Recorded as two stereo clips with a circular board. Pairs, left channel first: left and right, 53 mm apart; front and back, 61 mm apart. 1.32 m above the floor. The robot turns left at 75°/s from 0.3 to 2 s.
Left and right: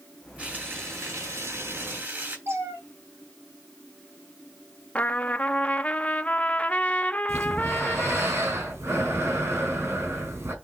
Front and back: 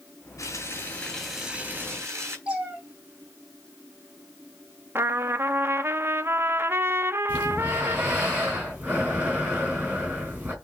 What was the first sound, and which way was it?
Frying, 20° right.